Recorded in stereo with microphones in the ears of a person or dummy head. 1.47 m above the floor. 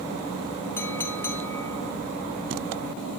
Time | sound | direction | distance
0.8 | a clink | 15° left (ahead or behind) | 1.6 m